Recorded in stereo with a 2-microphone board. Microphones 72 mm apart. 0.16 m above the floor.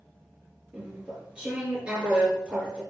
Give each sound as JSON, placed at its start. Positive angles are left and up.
{"t": 0.7, "sound": "chewing", "side_deg": -15, "distance_m": 3.5}